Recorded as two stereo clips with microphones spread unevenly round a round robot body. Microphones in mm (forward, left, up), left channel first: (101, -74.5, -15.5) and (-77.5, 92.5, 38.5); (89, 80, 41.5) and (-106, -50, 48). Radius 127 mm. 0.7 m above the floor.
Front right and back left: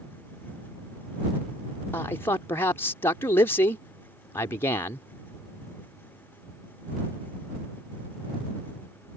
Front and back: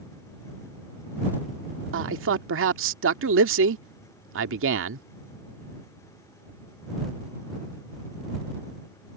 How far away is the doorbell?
No doorbell in this recording.